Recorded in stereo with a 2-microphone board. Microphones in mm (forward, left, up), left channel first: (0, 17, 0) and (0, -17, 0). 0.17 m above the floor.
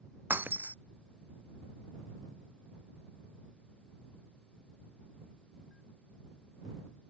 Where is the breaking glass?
70° right (ahead or behind).